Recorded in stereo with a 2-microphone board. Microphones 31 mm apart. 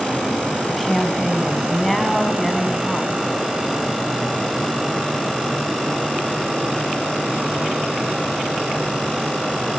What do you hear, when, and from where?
0.7 s a woman speaking: 5° left (ahead or behind), 3 m